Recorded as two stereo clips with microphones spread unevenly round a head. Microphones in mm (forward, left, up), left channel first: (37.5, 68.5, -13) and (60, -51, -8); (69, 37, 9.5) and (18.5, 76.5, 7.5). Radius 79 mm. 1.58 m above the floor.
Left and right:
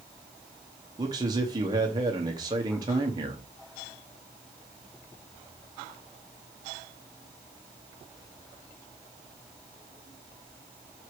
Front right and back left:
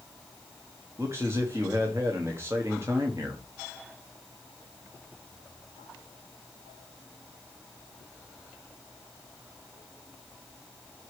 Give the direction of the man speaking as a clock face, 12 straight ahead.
5 o'clock.